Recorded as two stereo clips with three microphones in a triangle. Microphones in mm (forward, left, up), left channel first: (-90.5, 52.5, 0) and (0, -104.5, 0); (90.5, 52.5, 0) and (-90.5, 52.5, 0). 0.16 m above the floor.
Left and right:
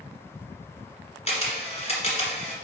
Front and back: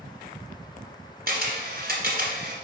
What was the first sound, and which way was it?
A camera shutter, 170° left.